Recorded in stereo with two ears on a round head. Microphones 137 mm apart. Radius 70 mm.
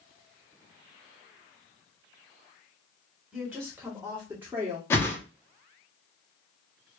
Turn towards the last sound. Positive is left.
turn(degrees=15)  # may be behind; listen again after turning